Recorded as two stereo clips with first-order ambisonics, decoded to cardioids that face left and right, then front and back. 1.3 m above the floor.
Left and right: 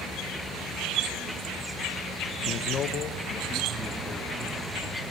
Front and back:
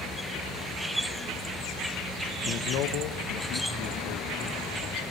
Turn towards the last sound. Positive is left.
turn(degrees=10)